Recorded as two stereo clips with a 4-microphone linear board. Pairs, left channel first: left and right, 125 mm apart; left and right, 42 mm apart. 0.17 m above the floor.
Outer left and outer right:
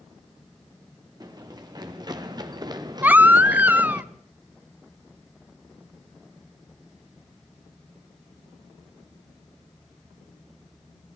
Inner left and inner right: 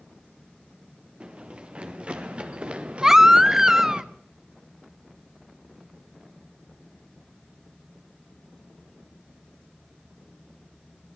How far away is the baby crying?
About 0.5 m.